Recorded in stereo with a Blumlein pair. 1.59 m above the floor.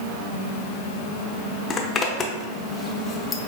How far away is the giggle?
I don't hear a giggle.